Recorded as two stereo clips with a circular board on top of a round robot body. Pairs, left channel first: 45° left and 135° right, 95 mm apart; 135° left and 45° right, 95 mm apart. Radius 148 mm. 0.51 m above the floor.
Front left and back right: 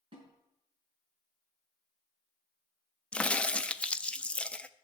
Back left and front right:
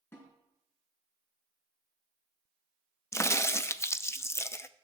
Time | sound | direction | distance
0.1 | a snare drum | 160° right | 4.5 m
3.1 | a crack | 110° left | 0.7 m